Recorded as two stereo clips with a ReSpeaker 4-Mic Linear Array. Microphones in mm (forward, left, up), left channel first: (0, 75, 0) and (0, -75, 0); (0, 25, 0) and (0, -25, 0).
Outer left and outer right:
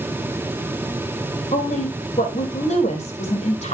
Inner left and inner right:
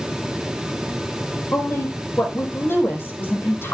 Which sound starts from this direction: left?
A woman speaking, at 1.5 s.